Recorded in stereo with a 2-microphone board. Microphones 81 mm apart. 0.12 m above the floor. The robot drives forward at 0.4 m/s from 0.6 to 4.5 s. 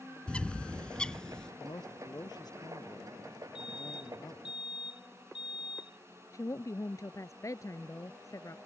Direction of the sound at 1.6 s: 60° left (ahead or behind).